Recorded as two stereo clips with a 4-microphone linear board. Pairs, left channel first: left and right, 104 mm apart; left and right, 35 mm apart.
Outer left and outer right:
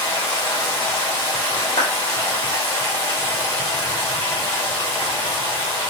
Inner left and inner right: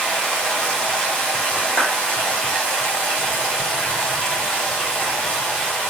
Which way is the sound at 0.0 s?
20° left (ahead or behind).